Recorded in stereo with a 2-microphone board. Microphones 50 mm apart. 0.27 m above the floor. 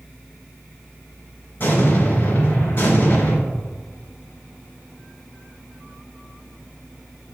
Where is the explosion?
50° left (ahead or behind), 3 m.